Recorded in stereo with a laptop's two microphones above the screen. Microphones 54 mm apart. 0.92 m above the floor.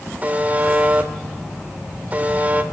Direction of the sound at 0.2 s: 30° right (ahead or behind).